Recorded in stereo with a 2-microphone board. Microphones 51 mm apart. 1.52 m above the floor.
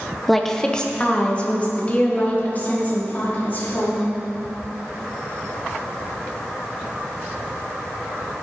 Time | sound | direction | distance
0.3 | a woman speaking | centre (ahead or behind) | 0.9 m